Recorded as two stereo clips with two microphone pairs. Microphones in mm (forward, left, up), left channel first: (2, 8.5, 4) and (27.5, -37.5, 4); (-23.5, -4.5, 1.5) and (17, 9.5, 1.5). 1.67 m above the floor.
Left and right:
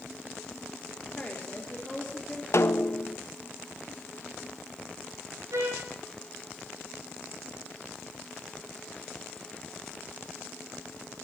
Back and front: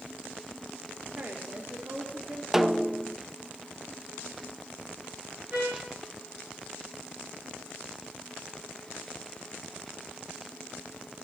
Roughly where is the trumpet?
Ahead right.